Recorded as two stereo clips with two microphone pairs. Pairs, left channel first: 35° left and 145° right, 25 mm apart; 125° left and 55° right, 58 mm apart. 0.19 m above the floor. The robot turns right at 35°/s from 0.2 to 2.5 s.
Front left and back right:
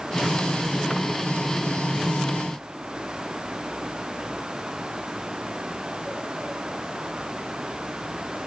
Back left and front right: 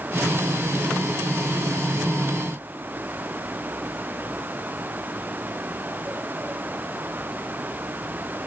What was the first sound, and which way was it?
Only background noise.